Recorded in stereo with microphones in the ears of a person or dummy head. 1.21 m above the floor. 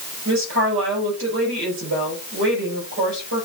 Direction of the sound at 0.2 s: 70° right (ahead or behind).